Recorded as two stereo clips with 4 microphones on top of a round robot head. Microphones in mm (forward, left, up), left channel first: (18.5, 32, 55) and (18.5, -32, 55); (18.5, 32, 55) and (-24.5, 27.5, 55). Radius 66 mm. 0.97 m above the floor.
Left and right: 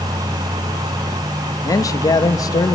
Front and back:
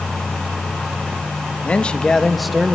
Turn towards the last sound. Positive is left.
turn(degrees=110)